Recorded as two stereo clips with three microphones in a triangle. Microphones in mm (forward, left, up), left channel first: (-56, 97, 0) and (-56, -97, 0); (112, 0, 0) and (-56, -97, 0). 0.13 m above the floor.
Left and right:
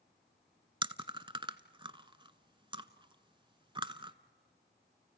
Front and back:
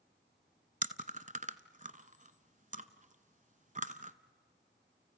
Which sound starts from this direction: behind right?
Chewing, at 0.8 s.